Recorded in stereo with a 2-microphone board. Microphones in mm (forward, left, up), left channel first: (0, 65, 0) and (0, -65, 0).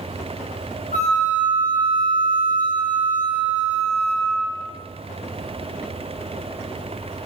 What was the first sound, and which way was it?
A flute, 75° left (ahead or behind).